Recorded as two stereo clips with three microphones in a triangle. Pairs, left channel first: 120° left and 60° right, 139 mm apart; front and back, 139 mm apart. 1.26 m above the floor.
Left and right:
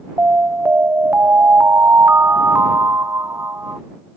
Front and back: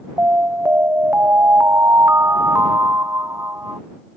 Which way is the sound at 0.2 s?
120° right.